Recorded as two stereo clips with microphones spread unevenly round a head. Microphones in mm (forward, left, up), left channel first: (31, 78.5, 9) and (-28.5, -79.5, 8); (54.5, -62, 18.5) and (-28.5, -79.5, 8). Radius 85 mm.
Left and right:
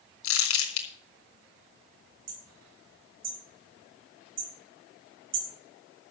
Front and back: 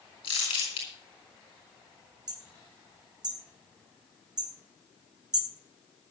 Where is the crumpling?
75° left, 3.5 m.